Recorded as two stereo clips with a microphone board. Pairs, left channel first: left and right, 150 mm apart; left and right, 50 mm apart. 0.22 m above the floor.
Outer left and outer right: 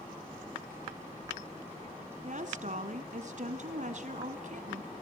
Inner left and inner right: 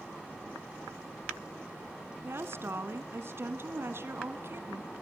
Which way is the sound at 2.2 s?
55° right (ahead or behind).